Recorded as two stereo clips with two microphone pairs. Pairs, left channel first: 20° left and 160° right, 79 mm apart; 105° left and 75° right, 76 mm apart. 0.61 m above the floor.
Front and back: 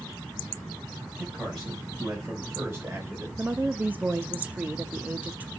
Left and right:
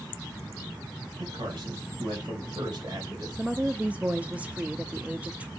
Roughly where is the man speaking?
Ahead right.